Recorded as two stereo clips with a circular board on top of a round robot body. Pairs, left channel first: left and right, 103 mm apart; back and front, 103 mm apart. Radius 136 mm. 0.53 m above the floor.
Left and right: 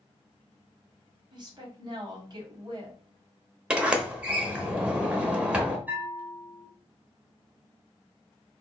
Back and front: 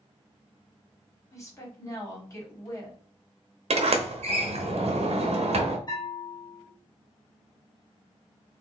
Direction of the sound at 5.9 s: 160° right.